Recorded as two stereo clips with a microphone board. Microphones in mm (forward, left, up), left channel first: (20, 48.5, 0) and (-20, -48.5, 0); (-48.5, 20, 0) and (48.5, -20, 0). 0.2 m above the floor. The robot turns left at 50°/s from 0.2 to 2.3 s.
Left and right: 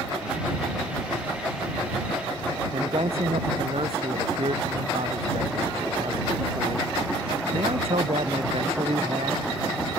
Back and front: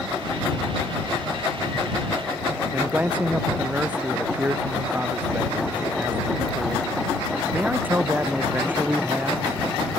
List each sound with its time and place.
2.7 s a man speaking: 95° right